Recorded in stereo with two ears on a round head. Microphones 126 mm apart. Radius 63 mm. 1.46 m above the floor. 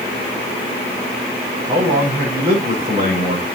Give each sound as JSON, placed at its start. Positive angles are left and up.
{"t": 1.7, "sound": "a man speaking", "side_deg": -40, "distance_m": 6.0}